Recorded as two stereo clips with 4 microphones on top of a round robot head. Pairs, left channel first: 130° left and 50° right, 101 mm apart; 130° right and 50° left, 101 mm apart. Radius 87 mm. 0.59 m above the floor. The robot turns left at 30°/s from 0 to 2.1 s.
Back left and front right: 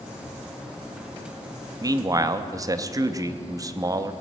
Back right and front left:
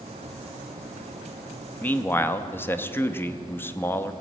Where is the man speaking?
65° right, 0.7 m; by 4.1 s 75° right, 0.7 m.